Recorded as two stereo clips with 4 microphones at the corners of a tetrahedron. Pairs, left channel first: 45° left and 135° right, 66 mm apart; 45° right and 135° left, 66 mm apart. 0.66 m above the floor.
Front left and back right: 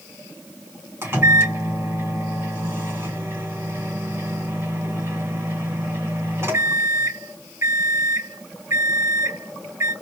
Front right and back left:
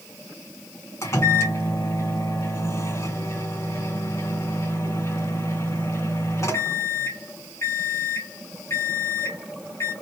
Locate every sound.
1.0 s a microwave: 85° right, 2.5 m